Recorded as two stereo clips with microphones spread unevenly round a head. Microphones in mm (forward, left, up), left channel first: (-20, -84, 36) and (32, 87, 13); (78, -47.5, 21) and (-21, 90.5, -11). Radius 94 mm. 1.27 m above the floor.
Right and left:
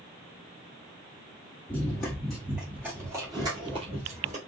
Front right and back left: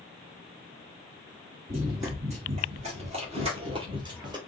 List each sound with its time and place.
1.7 s running footsteps: straight behind, 1.8 m; by 4.4 s 65° left, 1.4 m